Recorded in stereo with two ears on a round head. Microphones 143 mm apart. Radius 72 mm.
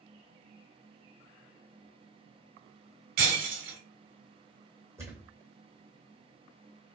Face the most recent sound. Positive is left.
turn(degrees=-20)  # may be behind; listen again after turning